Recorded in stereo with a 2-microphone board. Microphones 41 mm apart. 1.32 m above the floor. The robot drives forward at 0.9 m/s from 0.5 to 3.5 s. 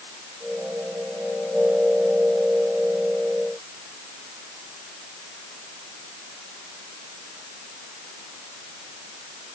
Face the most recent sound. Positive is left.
No sound to turn to.